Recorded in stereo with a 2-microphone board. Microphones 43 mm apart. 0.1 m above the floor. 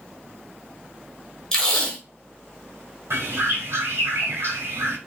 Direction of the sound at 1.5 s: 15° left (ahead or behind).